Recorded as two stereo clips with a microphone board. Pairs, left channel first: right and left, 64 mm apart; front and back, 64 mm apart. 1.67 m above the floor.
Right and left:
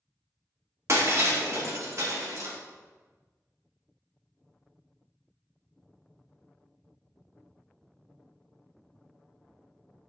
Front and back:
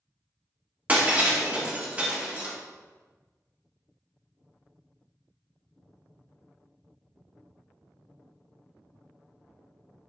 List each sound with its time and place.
0.9 s breaking glass: 120° left, 2 m